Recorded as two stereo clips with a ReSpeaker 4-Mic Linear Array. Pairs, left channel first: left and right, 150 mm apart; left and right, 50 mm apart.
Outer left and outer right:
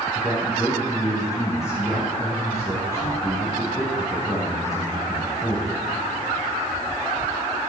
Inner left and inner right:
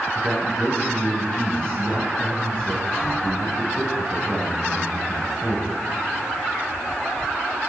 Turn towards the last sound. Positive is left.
turn(degrees=20)  # may be behind; listen again after turning